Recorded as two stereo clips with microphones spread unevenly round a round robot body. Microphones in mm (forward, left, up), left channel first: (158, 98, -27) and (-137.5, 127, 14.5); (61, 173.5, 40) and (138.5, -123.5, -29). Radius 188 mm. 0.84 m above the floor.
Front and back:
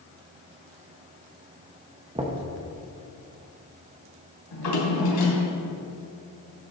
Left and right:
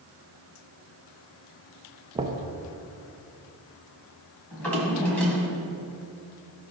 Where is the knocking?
110° right, 0.5 m.